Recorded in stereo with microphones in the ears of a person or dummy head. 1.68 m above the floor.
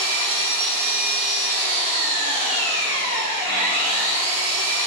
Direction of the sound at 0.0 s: 45° right (ahead or behind).